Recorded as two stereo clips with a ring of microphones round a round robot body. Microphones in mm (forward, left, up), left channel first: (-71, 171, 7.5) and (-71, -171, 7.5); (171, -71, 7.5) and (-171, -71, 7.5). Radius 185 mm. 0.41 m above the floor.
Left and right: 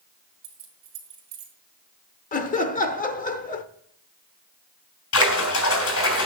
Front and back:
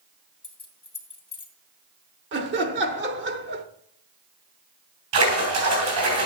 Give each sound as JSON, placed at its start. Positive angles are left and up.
{"t": 0.4, "sound": "keys jangling", "azimuth_deg": -75, "distance_m": 2.5}
{"t": 2.3, "sound": "laughter", "azimuth_deg": 145, "distance_m": 0.9}
{"t": 5.1, "sound": "a splash", "azimuth_deg": 135, "distance_m": 3.0}